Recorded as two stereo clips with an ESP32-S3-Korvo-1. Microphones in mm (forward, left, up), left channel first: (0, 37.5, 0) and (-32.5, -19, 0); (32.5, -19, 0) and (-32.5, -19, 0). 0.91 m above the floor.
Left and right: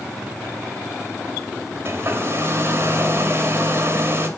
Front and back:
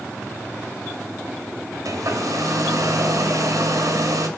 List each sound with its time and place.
1.9 s a hair dryer: 165° right, 2 m